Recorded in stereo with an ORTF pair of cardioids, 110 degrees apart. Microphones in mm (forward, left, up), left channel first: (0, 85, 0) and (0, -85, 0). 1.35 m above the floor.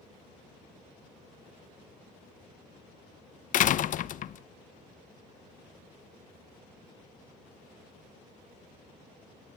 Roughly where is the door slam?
Ahead left.